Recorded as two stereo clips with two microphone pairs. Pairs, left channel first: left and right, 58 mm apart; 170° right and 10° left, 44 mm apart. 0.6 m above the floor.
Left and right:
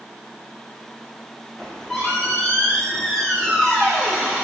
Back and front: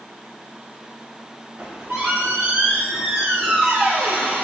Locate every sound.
1.6 s a squeak: 10° left, 0.9 m